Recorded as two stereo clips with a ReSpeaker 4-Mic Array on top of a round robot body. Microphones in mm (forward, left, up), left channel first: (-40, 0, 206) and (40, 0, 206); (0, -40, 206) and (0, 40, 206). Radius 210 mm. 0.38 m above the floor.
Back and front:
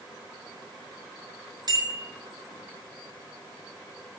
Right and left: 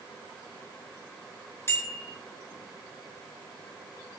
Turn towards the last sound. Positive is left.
turn(degrees=-30)